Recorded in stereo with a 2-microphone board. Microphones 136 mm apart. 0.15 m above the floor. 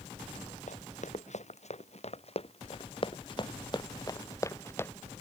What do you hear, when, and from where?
0.7 s running footsteps: 65° left (ahead or behind); by 4.9 s 15° left (ahead or behind)